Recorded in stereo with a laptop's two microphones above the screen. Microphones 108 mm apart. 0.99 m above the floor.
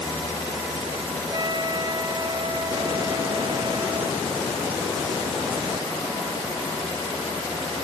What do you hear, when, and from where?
1.3 s a trumpet: 40° right (ahead or behind)